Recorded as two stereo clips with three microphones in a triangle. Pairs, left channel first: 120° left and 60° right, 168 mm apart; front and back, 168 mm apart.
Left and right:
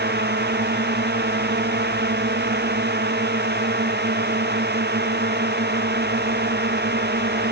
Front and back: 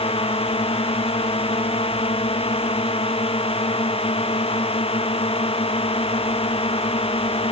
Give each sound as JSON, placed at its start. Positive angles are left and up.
{"t": 0.0, "sound": "a drone", "azimuth_deg": -55}